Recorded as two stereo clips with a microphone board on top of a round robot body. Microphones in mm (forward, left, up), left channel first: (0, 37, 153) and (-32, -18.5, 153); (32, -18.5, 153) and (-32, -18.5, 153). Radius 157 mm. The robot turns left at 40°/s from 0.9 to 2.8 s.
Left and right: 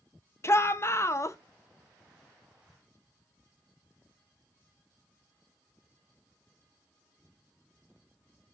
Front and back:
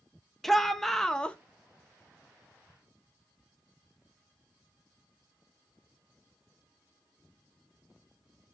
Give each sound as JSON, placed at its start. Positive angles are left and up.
{"t": 0.4, "sound": "a shout", "azimuth_deg": 85, "distance_m": 1.0}